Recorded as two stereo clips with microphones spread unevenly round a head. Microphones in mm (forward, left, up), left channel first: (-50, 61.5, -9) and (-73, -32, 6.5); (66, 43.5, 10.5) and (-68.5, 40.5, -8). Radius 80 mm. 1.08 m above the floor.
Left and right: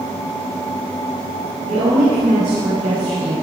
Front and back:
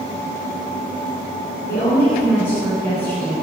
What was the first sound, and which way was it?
A woman speaking, 75° right.